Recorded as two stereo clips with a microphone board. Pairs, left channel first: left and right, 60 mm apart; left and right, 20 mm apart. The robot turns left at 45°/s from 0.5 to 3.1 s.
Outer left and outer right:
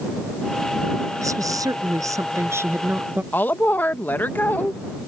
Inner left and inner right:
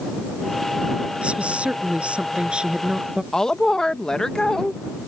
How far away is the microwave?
I don't hear a microwave.